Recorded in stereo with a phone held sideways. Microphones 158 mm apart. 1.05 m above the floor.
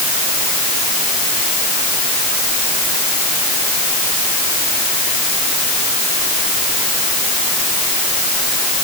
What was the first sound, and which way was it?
Only background noise.